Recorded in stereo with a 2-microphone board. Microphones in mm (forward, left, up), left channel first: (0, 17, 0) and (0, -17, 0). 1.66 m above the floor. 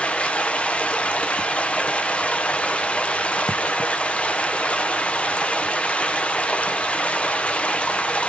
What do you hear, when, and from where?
0.0 s running water: 35° left (ahead or behind), 0.7 m